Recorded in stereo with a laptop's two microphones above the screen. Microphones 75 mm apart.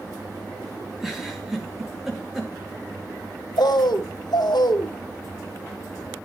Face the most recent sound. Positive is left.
turn(degrees=75)  # may be behind; listen again after turning